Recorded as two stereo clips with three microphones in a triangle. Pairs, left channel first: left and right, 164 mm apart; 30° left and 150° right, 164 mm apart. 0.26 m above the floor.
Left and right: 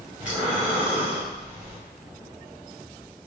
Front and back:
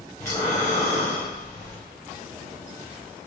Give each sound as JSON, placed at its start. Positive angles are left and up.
{"t": 0.2, "sound": "breathing", "azimuth_deg": -15, "distance_m": 1.6}